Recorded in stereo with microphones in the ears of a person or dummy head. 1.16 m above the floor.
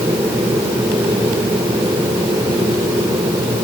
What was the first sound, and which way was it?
Only background noise.